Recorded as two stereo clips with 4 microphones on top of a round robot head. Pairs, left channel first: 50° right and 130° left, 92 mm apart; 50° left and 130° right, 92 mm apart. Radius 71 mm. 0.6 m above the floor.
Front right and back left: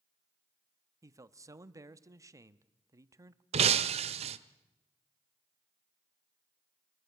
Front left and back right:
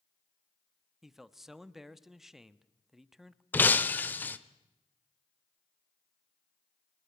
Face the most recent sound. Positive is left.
turn(degrees=120)